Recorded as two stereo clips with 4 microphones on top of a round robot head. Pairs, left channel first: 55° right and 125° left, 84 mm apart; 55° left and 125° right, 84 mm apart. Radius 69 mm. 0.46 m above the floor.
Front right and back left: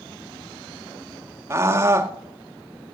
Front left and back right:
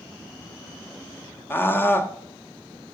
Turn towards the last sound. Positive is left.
turn(degrees=95)